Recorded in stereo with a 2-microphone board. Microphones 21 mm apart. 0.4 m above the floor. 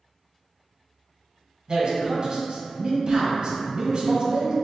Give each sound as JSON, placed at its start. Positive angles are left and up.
{"t": 1.7, "sound": "a man speaking", "side_deg": -40, "distance_m": 1.6}